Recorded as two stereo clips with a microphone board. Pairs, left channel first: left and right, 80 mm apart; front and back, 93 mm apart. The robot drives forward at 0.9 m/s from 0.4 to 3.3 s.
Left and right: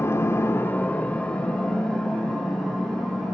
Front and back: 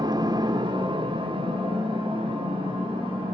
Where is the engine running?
145° left, 0.7 m; by 3.3 s 175° left, 3 m.